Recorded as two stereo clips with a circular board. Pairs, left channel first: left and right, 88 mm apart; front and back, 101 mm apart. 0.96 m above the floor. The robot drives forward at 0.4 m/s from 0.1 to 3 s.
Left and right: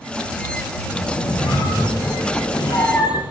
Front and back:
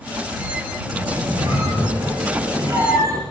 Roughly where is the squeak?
Behind left.